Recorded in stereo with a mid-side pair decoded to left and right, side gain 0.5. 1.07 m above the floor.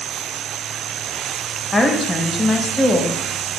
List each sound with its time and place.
1.7 s a woman speaking: 10° left, 0.8 m